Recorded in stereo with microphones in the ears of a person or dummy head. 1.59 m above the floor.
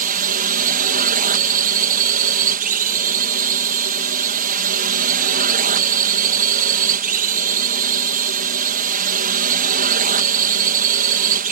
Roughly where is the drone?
Right.